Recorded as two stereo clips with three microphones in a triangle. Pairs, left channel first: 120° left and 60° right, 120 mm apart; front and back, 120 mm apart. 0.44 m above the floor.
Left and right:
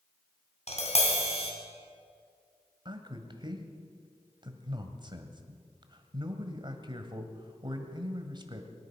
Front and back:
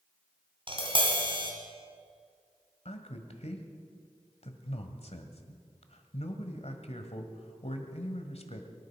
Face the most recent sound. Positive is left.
turn(degrees=-15)